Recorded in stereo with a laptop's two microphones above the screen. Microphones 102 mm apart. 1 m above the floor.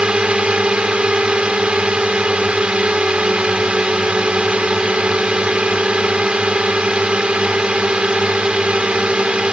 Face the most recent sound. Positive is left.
turn(degrees=-10)  # may be behind; listen again after turning